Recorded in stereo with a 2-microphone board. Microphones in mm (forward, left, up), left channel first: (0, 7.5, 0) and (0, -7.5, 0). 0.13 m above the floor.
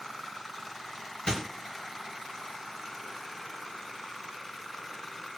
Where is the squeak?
70° left (ahead or behind), 1.5 m.